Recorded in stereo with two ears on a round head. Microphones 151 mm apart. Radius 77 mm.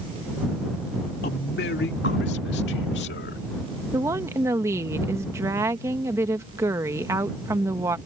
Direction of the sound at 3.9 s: 15° right (ahead or behind).